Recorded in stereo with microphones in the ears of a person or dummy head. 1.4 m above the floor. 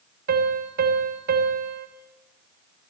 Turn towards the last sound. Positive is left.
turn(degrees=-60)  # may be behind; listen again after turning